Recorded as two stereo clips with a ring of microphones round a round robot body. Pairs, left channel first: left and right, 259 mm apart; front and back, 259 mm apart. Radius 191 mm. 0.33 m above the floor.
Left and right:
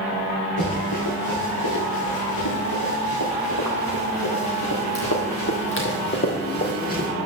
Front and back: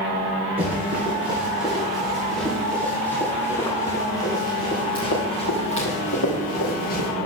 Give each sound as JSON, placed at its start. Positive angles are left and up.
{"t": 0.6, "sound": "running footsteps", "azimuth_deg": 105, "distance_m": 4.5}